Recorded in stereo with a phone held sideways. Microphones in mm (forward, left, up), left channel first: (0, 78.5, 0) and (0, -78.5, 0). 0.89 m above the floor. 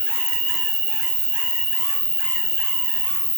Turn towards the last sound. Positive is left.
turn(degrees=-40)  # may be behind; listen again after turning